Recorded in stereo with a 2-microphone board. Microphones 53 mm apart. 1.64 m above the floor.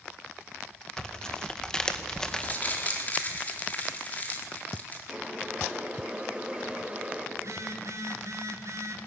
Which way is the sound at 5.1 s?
20° right (ahead or behind).